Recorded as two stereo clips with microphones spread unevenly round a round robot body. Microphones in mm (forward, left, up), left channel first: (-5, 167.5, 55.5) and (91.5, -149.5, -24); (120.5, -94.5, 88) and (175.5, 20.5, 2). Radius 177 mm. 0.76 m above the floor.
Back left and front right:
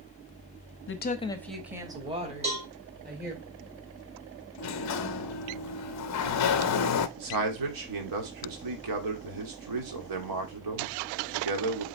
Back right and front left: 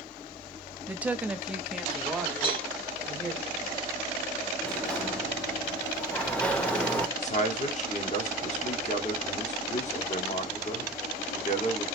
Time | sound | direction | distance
0.9 | a woman speaking | 55° left | 0.9 m
2.4 | a cowbell | 5° right | 3 m
4.6 | a sliding door | 100° left | 0.7 m
7.2 | a man speaking | 70° right | 1.9 m